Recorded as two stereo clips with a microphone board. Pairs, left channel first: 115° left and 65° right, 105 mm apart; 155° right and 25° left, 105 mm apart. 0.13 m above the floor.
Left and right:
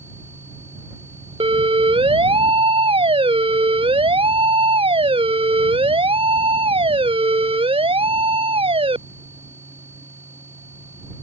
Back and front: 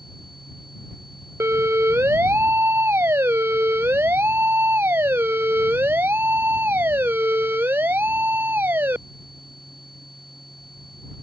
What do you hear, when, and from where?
1.4 s a siren: 45° right